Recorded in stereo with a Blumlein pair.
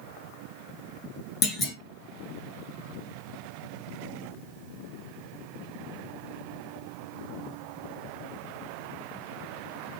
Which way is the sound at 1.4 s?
20° left.